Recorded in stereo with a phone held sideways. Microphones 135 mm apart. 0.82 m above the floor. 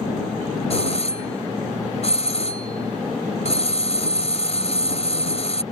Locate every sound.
0.7 s a doorbell: 50° left (ahead or behind)